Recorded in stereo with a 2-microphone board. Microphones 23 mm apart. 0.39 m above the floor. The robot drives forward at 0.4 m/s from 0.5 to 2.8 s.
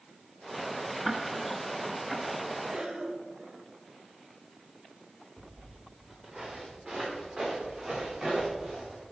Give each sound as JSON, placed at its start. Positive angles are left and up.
{"t": 1.1, "sound": "ticking", "side_deg": -10, "distance_m": 0.8}
{"t": 2.7, "sound": "a cough", "side_deg": -50, "distance_m": 1.6}
{"t": 5.4, "sound": "footsteps", "side_deg": -20, "distance_m": 3.0}